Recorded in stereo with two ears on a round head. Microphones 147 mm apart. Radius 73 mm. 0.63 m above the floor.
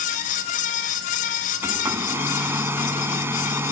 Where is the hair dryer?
15° right (ahead or behind).